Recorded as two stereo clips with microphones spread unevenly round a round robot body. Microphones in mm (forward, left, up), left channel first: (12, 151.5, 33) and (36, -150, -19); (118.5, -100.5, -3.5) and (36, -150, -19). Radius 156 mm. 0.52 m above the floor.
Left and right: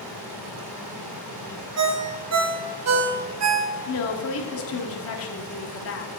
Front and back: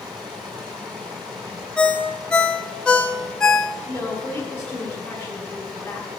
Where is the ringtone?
50° right, 1.1 m.